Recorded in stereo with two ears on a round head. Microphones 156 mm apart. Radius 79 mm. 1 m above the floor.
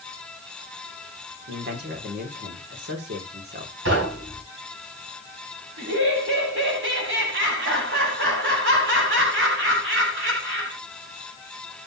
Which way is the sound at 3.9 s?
90° right.